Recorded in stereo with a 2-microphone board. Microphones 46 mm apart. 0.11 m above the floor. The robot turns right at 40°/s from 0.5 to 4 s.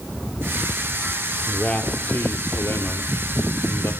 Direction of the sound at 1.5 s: 20° left.